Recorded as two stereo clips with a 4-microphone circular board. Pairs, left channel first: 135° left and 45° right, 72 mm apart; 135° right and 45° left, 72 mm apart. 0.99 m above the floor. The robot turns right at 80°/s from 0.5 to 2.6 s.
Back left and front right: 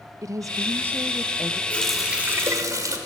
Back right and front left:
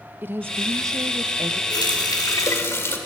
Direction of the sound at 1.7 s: 155° right.